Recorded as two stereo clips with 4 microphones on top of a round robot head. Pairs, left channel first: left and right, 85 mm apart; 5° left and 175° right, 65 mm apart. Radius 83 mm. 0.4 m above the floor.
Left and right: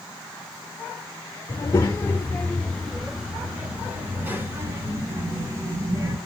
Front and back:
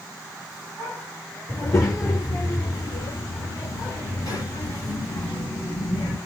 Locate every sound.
1.5 s a child speaking: 40° left, 1.3 m; by 6.2 s 40° right, 3 m